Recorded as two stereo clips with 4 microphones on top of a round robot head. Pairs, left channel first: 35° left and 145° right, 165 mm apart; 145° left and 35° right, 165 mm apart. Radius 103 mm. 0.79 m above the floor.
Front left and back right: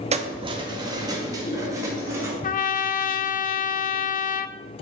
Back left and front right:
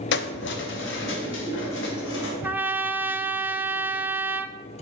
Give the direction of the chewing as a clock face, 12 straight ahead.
I don't hear chewing.